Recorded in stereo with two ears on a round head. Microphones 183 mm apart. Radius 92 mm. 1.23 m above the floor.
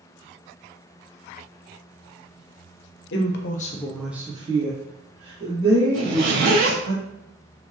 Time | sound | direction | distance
3.1 | a woman speaking | 60° left (ahead or behind) | 0.7 m
5.9 | a zipper | 65° right (ahead or behind) | 1.6 m